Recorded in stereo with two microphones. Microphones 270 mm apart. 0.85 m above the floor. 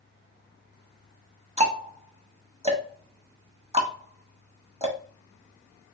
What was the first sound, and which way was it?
Ticking, 25° right (ahead or behind).